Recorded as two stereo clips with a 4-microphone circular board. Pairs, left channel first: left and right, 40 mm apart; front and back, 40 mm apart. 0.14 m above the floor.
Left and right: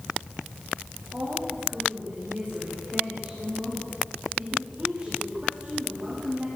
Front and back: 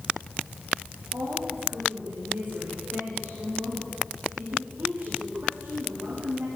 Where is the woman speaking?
155° right, 8.5 m.